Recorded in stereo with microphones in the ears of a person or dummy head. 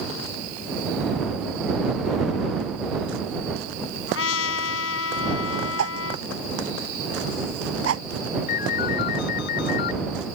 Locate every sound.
4.1 s a trumpet: 85° left
5.8 s a whoosh: 85° right
8.5 s a ringtone: 65° left (ahead or behind)